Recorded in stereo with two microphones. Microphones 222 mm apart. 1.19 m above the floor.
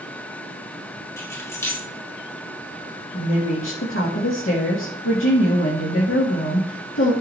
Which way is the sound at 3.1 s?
70° left (ahead or behind).